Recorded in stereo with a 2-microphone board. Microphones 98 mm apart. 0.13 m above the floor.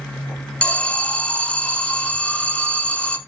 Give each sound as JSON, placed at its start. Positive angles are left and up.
{"t": 0.6, "sound": "an alarm", "side_deg": 10, "distance_m": 1.1}